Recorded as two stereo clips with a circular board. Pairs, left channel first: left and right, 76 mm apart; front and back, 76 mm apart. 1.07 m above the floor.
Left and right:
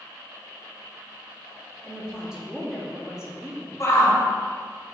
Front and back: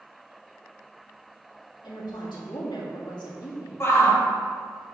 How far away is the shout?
About 1.2 m.